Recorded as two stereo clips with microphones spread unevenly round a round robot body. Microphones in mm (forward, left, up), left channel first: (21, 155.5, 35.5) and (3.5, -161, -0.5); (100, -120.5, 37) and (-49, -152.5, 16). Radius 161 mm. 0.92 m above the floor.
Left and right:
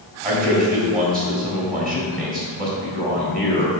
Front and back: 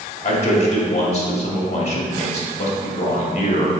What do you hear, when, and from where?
0.2 s a man speaking: 30° right, 2 m